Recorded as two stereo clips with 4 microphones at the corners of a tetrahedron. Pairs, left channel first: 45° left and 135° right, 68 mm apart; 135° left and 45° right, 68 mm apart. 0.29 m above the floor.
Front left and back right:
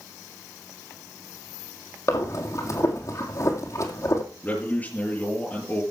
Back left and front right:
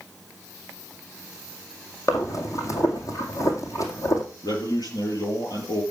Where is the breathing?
90° left, 2 m.